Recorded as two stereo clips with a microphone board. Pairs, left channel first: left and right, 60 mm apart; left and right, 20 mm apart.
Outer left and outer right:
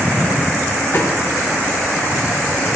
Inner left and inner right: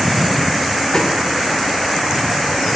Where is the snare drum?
45° left (ahead or behind), 7 m.